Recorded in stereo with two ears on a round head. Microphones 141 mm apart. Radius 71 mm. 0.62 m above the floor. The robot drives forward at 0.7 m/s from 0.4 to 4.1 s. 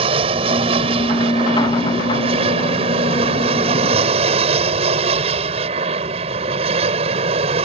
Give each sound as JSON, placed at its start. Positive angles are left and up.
{"t": 0.0, "sound": "an aircraft", "side_deg": -35}